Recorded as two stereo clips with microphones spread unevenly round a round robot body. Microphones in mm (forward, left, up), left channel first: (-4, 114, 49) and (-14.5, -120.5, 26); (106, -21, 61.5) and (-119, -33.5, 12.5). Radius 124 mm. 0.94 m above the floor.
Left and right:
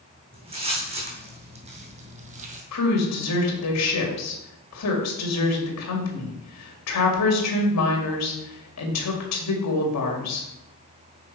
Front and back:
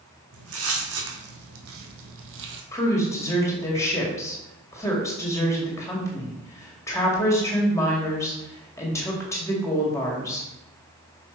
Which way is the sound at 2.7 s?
85° left.